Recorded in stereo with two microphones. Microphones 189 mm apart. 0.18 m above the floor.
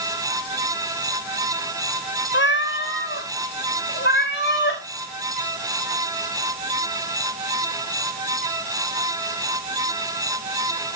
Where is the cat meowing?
80° left, 0.8 m; by 4.8 s 75° left (ahead or behind), 3 m.